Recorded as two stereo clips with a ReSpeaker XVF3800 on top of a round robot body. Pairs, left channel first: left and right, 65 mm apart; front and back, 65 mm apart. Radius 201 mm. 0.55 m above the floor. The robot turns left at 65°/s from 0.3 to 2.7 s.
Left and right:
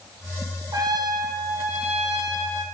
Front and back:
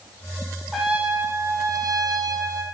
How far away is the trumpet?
About 9 m.